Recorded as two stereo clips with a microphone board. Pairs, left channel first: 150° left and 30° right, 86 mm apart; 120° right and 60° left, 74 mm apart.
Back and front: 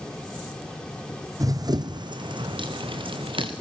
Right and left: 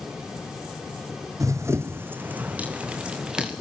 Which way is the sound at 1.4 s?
15° left.